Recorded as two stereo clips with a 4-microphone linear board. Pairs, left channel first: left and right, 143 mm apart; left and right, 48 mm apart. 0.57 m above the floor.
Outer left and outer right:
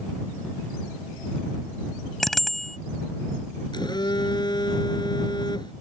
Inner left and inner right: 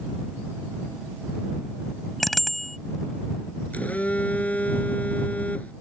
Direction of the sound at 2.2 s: Centre (ahead or behind).